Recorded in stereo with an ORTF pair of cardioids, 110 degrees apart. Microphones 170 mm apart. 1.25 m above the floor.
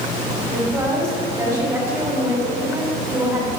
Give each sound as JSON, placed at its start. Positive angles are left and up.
{"t": 0.5, "sound": "a woman speaking", "azimuth_deg": -20, "distance_m": 3.5}